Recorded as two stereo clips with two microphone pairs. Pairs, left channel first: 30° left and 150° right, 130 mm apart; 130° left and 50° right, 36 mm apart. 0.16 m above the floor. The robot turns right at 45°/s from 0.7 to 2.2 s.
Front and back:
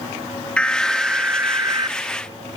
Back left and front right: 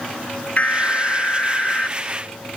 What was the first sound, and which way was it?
An alarm, 110° left.